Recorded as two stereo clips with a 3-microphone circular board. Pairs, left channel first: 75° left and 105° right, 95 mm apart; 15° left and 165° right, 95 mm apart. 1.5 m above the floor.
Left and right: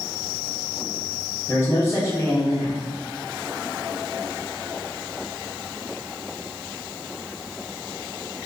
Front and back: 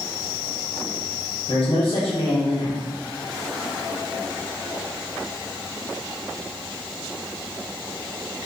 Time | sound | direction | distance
1.5 | a man speaking | 15° left | 1.0 m